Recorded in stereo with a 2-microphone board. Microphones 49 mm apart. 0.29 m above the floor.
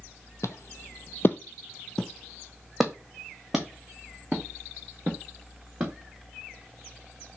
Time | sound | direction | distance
0.4 | footsteps | 65° left (ahead or behind) | 0.6 m